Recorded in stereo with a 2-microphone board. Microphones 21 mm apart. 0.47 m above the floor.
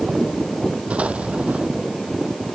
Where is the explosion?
70° right (ahead or behind).